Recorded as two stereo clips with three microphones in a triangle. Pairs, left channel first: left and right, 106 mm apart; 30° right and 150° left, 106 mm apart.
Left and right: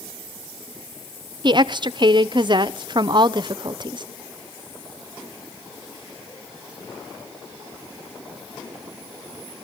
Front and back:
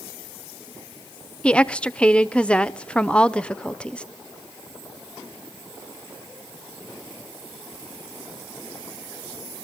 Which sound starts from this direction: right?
A woman speaking, at 1.4 s.